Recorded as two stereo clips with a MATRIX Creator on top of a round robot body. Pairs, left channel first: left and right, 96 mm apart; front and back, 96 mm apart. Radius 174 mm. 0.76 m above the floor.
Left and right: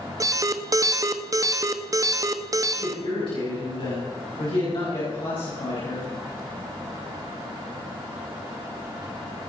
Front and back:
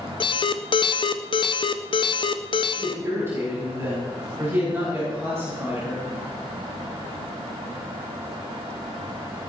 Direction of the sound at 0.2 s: 35° right.